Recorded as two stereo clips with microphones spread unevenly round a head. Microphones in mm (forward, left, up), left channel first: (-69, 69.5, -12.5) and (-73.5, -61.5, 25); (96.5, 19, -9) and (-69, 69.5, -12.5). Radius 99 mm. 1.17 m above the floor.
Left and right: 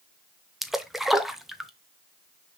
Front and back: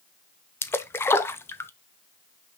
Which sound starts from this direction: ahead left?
A splash, at 0.6 s.